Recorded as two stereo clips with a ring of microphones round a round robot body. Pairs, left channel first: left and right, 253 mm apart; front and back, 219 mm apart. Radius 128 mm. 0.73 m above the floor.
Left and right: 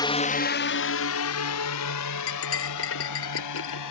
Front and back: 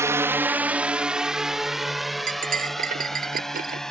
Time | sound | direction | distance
0.0 | a drone | 130° left | ?
2.3 | cutlery clinking | 130° left | ?